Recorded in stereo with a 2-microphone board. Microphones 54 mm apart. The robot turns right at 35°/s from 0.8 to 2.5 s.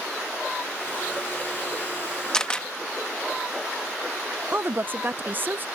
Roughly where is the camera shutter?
Centre.